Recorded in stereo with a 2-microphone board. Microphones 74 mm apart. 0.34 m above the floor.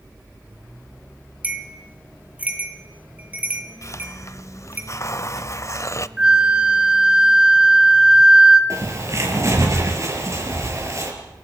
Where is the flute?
15° right (ahead or behind), 1.6 m.